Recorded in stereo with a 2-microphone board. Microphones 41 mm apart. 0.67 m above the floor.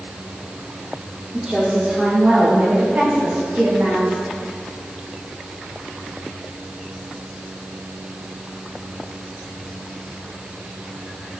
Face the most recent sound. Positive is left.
turn(degrees=-50)  # may be behind; listen again after turning